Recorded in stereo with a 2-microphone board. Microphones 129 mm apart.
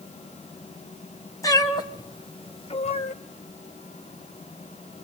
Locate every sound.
1.4 s a cat meowing: 25° left (ahead or behind), 2 m; by 3.1 s 65° left (ahead or behind), 1.0 m